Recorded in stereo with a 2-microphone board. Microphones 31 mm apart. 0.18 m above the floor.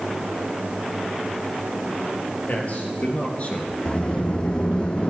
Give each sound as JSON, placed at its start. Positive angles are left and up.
{"t": 2.5, "sound": "a man speaking", "side_deg": 55, "distance_m": 4.0}
{"t": 3.9, "sound": "a sliding door", "side_deg": 35, "distance_m": 1.4}